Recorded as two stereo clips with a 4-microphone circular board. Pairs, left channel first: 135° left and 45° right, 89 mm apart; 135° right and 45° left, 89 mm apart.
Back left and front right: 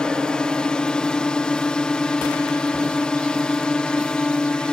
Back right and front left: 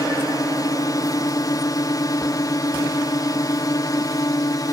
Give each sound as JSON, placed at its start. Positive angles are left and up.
{"t": 0.0, "sound": "a drone", "azimuth_deg": -150}